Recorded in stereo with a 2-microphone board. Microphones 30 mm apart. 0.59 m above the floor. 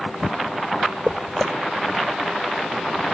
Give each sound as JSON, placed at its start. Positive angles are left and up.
{"t": 1.1, "sound": "footsteps", "side_deg": 5}